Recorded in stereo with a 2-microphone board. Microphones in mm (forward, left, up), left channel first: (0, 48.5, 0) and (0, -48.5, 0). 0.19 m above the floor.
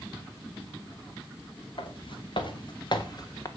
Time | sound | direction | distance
1.8 | footsteps | 65° left (ahead or behind) | 3 m